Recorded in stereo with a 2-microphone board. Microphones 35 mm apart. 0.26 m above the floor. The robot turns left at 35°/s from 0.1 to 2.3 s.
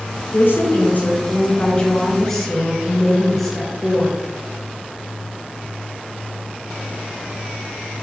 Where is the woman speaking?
75° left, 3.5 m; by 4.2 s 5° left, 3.5 m.